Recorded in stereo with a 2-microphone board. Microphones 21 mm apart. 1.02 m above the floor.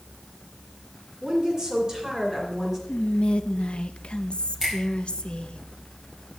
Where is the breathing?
I don't hear breathing.